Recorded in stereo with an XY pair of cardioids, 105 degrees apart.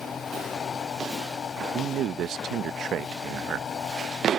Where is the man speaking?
65° right.